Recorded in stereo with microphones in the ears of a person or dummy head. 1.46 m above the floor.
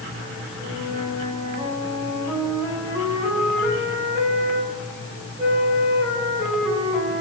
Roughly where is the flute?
Centre.